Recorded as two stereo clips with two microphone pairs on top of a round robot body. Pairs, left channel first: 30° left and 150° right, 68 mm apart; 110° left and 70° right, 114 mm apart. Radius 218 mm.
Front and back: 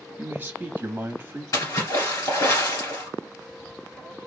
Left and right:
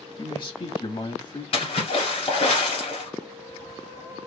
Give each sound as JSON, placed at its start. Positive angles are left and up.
{"t": 0.2, "sound": "a man speaking", "azimuth_deg": 155, "distance_m": 1.7}
{"t": 1.5, "sound": "a splash", "azimuth_deg": 75, "distance_m": 1.6}